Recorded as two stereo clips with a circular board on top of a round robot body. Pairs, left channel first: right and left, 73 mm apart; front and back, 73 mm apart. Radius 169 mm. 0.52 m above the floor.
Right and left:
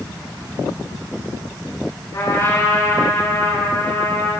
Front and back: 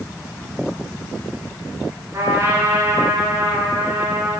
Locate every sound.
2.1 s a trumpet: 135° right, 9 m